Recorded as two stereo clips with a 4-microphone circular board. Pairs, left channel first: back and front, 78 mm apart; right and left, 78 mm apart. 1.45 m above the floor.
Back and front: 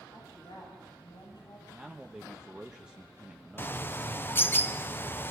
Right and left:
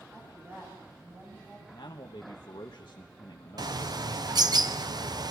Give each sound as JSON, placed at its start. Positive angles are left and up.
{"t": 0.1, "sound": "a woman speaking", "azimuth_deg": 145, "distance_m": 9.5}
{"t": 1.7, "sound": "a man speaking", "azimuth_deg": -80, "distance_m": 1.2}
{"t": 3.6, "sound": "a bird", "azimuth_deg": 120, "distance_m": 0.8}